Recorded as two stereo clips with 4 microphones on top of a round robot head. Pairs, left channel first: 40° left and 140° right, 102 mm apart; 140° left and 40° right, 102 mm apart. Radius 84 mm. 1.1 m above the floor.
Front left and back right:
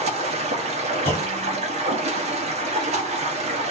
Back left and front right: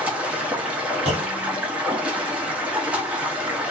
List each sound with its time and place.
0.0 s running water: 120° right, 0.7 m
1.1 s a clunk: 30° right, 1.2 m